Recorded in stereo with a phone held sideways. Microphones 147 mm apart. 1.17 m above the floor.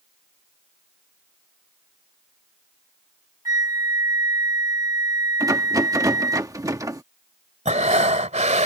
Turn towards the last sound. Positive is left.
turn(degrees=-50)  # may be behind; listen again after turning